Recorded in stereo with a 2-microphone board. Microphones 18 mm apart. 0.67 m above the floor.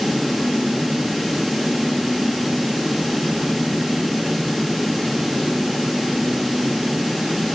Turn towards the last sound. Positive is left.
No sound to turn to.